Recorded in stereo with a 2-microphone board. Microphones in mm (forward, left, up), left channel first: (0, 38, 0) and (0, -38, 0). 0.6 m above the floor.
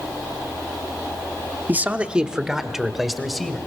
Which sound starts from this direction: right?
A man speaking, at 1.7 s.